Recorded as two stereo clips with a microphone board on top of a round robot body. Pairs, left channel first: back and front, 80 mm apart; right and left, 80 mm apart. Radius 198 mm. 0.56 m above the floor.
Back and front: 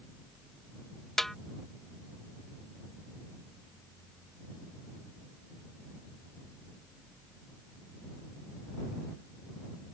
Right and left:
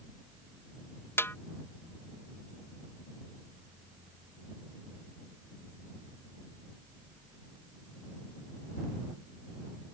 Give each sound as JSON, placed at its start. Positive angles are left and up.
{"t": 1.2, "sound": "a snare drum", "azimuth_deg": -95}